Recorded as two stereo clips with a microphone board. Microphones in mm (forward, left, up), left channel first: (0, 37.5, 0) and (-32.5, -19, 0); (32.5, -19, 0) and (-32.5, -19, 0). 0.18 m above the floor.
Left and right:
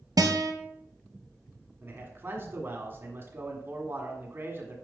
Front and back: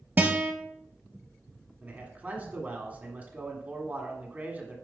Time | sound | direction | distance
0.2 | a guitar | 120° right | 1.4 m
1.8 | a man speaking | 135° right | 1.6 m